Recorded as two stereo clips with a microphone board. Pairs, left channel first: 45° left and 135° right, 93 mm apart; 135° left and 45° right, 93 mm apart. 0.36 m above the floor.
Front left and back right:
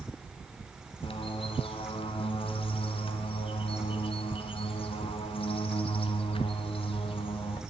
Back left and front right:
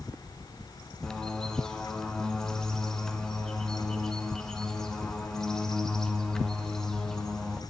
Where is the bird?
50° left, 1.7 m.